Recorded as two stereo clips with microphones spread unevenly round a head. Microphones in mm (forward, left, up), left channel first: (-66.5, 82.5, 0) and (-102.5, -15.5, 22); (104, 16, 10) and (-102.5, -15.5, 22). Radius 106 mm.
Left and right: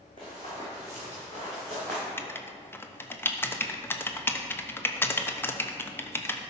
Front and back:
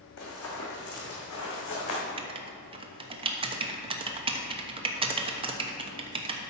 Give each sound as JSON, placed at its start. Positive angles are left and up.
{"t": 0.2, "sound": "running footsteps", "azimuth_deg": 0, "distance_m": 2.5}
{"t": 2.2, "sound": "writing", "azimuth_deg": 125, "distance_m": 0.8}